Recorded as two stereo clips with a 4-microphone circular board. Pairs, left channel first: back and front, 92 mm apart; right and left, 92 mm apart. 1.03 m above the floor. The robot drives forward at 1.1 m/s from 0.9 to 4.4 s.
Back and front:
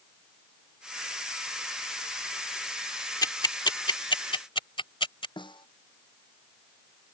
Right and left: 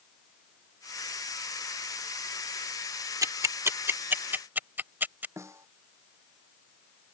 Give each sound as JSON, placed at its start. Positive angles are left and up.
{"t": 3.2, "sound": "ticking", "azimuth_deg": 135}
{"t": 5.4, "sound": "a snare drum", "azimuth_deg": 150}